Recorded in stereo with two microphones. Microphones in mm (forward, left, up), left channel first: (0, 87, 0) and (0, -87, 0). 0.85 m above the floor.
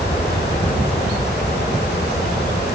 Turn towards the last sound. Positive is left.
turn(degrees=70)  # may be behind; listen again after turning